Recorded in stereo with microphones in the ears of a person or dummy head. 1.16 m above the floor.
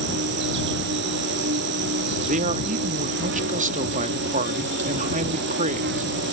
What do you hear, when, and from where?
0.0 s an insect: 55° right (ahead or behind)
2.2 s a man speaking: 40° right (ahead or behind)